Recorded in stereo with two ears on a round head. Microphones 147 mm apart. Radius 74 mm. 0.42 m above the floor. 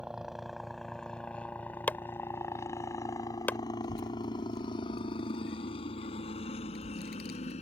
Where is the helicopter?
5° right (ahead or behind); by 7.6 s 45° left (ahead or behind).